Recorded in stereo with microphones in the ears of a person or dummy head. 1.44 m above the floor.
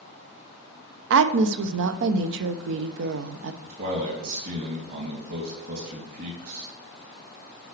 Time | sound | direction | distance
1.1 | a woman speaking | 75° right (ahead or behind) | 0.6 m
3.6 | a man speaking | 60° right (ahead or behind) | 3 m